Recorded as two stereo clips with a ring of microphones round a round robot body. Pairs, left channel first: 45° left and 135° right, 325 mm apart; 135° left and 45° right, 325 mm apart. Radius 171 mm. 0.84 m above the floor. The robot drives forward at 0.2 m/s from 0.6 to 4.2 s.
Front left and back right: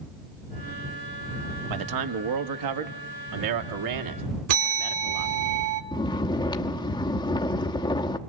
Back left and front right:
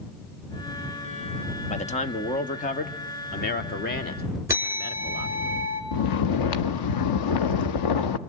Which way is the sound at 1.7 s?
155° right.